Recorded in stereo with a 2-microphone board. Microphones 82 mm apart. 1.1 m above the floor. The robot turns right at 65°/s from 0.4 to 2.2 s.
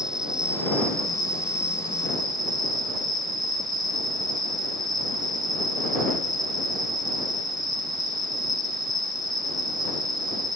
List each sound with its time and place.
0.0 s an insect: 170° right; by 10.6 s 55° right